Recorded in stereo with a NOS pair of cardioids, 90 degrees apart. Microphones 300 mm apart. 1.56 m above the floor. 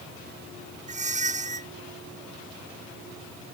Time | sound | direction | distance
0.9 | a squeak | 25° right | ?